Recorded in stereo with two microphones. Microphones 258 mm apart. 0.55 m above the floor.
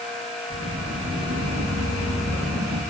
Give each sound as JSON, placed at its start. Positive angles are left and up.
{"t": 0.5, "sound": "footsteps", "side_deg": -80, "distance_m": 6.0}